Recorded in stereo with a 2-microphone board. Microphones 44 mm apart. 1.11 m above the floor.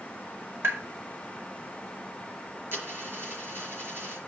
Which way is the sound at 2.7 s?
60° right (ahead or behind).